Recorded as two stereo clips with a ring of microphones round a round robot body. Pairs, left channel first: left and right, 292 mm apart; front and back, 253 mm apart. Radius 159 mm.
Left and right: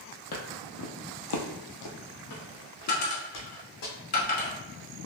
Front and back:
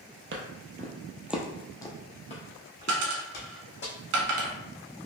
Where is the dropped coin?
150° left, 1.0 m.